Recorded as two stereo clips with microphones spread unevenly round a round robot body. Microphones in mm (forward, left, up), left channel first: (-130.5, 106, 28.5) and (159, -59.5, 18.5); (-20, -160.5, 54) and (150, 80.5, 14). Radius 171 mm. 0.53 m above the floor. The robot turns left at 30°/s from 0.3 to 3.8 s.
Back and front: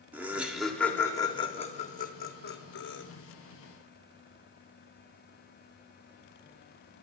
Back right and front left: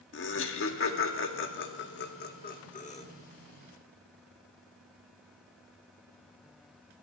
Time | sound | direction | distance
0.1 | laughter | 110° right | 1.2 m